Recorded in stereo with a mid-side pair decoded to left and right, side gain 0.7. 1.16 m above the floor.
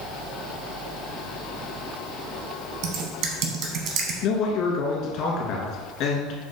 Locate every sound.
2.8 s typing on a keyboard: 60° right, 1.0 m
4.2 s a man speaking: 60° left, 1.5 m